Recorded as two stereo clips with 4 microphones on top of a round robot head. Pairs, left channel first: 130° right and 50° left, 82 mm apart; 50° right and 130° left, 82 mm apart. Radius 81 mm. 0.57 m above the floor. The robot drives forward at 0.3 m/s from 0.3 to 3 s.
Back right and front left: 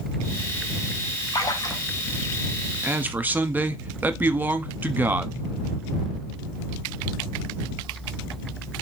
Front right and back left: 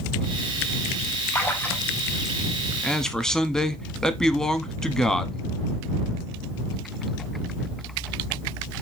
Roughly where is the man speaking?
Ahead.